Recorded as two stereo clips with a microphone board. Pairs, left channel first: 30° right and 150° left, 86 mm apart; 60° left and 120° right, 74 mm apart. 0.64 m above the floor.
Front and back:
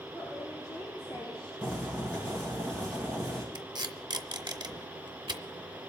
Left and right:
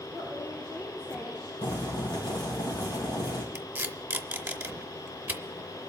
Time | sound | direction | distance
0.1 | a woman speaking | straight ahead | 9.5 m
1.6 | boiling | 50° left | 4 m
3.5 | tape being pulled | 175° left | 0.6 m